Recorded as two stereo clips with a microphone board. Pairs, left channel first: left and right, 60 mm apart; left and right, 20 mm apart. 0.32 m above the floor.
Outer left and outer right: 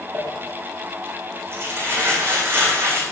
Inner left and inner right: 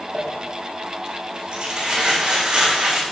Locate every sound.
0.1 s crumpling: 45° right (ahead or behind), 8.5 m